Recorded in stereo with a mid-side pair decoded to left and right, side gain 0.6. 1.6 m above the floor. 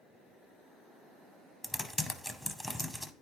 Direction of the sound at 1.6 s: 10° left.